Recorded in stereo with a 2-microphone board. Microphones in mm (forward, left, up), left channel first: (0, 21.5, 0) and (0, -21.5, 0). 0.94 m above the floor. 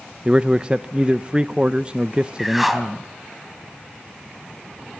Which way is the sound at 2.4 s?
Centre (ahead or behind).